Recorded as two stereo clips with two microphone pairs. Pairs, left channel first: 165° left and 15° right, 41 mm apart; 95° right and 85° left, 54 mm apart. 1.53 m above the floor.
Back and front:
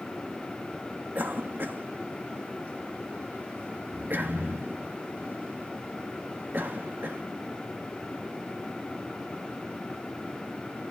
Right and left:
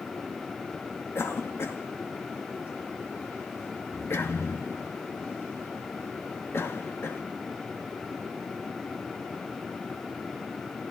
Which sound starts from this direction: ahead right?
A cough, at 1.1 s.